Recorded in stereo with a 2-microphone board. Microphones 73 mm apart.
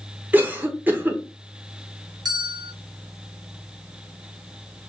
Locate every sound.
0.3 s a cough: 25° right (ahead or behind), 0.9 m
2.2 s a bell: 65° right (ahead or behind), 0.9 m